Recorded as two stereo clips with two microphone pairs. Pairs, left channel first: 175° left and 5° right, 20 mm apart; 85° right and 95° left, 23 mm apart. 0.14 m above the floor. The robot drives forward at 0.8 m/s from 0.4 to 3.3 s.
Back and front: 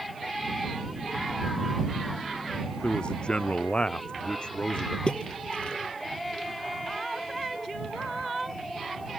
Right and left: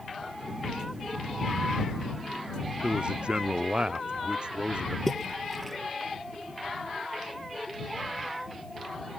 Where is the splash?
165° right.